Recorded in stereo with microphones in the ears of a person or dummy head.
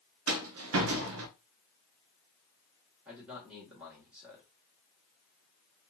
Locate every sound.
0.3 s a rattle: 70° right (ahead or behind), 0.5 m
3.0 s a man speaking: 5° right (ahead or behind), 1.3 m